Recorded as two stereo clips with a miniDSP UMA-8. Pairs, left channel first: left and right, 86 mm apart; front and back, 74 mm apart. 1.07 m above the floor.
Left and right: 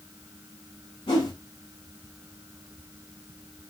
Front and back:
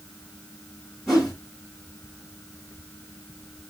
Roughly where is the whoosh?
Left.